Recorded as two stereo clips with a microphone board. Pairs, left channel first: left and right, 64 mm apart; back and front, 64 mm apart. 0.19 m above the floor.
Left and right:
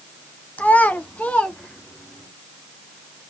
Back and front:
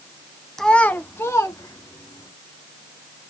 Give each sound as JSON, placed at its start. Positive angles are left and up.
{"t": 0.6, "sound": "a child speaking", "azimuth_deg": 105, "distance_m": 0.7}